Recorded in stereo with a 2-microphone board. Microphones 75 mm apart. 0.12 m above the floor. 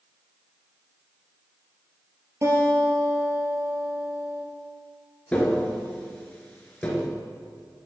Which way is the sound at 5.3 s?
15° left (ahead or behind).